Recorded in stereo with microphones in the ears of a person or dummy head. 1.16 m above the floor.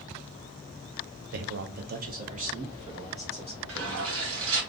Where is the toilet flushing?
70° right (ahead or behind), 1.2 m.